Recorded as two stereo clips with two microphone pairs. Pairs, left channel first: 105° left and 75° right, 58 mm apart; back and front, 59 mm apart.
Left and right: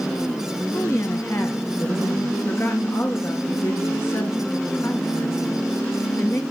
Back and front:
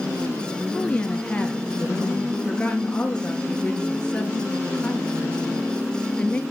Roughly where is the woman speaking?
Left.